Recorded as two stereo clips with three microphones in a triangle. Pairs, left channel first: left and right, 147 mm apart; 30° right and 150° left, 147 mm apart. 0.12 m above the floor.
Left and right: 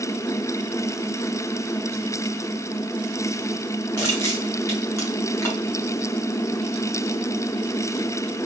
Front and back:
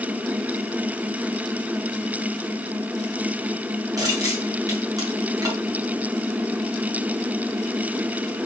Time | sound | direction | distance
4.0 | crushing | 130° left | 1.4 m